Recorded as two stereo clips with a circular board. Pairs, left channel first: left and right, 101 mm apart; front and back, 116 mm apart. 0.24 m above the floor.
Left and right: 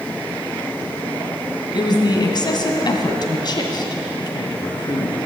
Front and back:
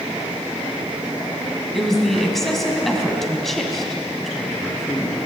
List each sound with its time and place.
1.7 s a woman speaking: 85° left, 2 m